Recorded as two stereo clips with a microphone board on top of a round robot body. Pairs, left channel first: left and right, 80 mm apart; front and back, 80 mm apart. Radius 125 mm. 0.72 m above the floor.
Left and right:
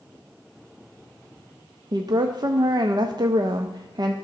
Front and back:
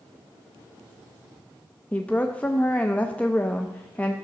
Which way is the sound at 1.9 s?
70° right.